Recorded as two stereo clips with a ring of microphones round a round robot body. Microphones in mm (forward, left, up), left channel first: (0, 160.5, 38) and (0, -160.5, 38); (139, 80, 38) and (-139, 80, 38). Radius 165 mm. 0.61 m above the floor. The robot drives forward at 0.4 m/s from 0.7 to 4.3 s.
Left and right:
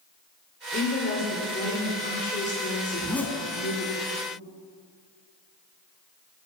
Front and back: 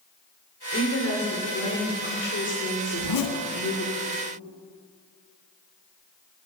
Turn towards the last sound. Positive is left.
turn(degrees=10)